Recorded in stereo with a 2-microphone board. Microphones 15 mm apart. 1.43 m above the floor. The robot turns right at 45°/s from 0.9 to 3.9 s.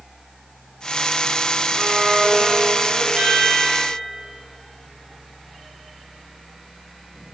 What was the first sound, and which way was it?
A violin, 150° right.